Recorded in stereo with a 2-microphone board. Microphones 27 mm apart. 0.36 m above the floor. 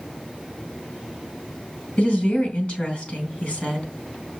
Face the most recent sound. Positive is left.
turn(degrees=40)  # may be behind; listen again after turning